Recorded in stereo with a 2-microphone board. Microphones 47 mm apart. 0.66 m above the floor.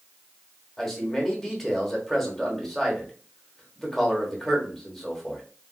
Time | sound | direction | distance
0.8 | a man speaking | 5° left (ahead or behind) | 1.1 m